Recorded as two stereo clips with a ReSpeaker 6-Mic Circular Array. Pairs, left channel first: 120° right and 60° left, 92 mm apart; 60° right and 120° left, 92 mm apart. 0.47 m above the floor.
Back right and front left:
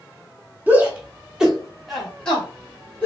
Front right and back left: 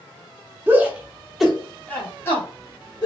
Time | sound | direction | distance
0.7 | a shout | 90° left | 1.2 m